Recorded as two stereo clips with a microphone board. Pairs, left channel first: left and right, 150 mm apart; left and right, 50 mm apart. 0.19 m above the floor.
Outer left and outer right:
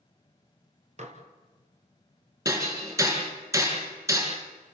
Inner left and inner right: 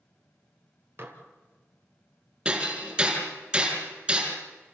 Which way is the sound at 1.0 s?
50° right (ahead or behind).